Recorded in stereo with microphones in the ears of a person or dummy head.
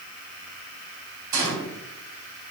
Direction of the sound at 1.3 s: 20° right (ahead or behind).